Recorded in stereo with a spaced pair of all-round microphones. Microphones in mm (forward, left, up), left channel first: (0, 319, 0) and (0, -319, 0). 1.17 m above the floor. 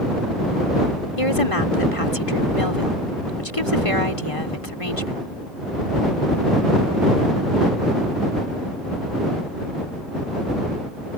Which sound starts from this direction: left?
A woman speaking, at 1.2 s.